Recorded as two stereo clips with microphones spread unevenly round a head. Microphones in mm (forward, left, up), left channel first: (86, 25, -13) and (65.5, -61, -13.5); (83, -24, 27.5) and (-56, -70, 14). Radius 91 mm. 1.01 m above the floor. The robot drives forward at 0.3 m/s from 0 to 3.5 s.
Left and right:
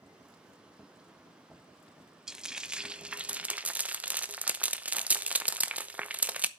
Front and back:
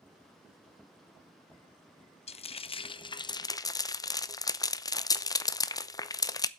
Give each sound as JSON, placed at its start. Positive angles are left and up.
{"t": 2.3, "sound": "frying", "azimuth_deg": -20, "distance_m": 1.0}